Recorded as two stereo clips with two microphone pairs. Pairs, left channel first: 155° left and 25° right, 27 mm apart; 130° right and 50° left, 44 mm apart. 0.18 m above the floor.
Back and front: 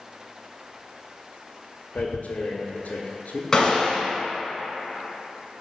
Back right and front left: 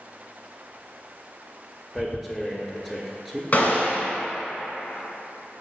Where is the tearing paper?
135° left, 0.5 m.